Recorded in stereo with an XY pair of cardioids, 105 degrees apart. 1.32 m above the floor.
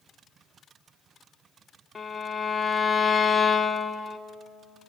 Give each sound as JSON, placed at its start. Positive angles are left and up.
{"t": 1.9, "sound": "a violin", "azimuth_deg": 30, "distance_m": 1.6}